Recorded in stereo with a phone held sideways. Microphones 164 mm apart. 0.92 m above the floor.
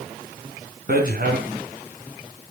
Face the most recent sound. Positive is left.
turn(degrees=-70)  # may be behind; listen again after turning